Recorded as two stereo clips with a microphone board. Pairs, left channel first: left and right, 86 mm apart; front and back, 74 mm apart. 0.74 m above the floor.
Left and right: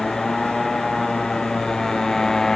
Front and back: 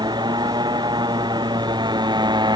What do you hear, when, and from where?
0.0 s a motorcycle: 175° left